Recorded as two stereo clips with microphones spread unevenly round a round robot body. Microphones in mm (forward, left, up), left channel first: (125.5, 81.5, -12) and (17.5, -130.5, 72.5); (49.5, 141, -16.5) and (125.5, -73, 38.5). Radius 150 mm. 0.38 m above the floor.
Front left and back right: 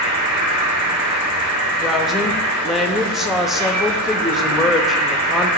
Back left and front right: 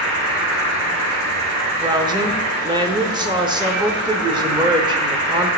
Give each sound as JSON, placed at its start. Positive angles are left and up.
{"t": 0.0, "sound": "an insect", "azimuth_deg": -110, "distance_m": 2.0}
{"t": 1.8, "sound": "a woman speaking", "azimuth_deg": 10, "distance_m": 0.9}